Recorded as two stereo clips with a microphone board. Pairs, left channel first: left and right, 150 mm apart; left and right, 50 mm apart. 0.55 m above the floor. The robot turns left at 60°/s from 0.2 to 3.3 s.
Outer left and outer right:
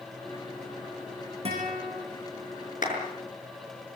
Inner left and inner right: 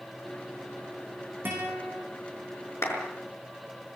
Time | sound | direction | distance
1.4 | a guitar | 135° right | 8.5 m
2.8 | a clap | 65° left (ahead or behind) | 6.5 m